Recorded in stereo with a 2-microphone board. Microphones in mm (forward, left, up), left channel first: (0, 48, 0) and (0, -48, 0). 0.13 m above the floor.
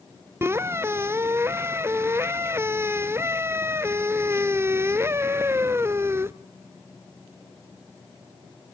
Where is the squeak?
25° right (ahead or behind), 0.5 m.